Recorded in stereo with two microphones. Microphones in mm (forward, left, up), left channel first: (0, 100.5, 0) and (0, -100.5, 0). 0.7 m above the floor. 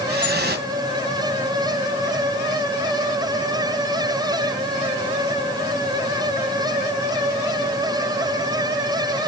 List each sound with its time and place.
0.1 s dripping: 60° right (ahead or behind), 3 m